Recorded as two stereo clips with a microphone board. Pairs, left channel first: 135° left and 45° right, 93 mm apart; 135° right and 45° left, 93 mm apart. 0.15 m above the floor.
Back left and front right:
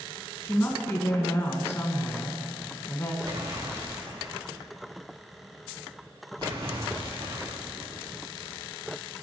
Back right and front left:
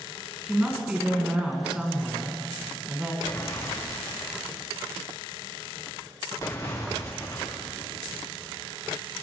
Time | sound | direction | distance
0.4 | a woman speaking | 115° left | 1.6 m
3.2 | an explosion | 85° right | 5 m